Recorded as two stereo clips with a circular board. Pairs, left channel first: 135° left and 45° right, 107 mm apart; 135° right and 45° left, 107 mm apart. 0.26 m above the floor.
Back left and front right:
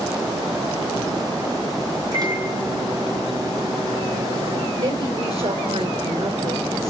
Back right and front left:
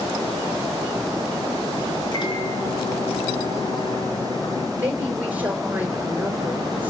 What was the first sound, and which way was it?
A microwave, 95° right.